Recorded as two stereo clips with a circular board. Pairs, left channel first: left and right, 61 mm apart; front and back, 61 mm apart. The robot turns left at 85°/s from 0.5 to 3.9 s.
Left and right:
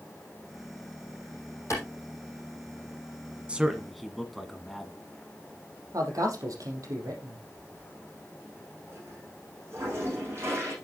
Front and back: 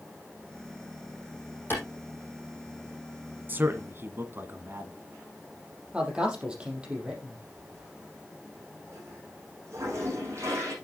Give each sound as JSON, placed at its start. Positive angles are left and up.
{"t": 1.7, "sound": "a clap", "azimuth_deg": 55, "distance_m": 6.5}
{"t": 3.5, "sound": "a man speaking", "azimuth_deg": -145, "distance_m": 1.4}
{"t": 5.9, "sound": "a man speaking", "azimuth_deg": -105, "distance_m": 4.5}
{"t": 7.5, "sound": "a toilet flushing", "azimuth_deg": -135, "distance_m": 8.0}